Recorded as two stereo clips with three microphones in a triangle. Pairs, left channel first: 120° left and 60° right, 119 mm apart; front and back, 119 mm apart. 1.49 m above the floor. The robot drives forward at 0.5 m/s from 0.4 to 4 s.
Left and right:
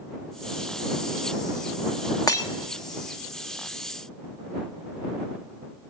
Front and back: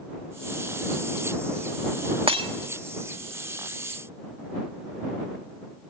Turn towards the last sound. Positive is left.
turn(degrees=175)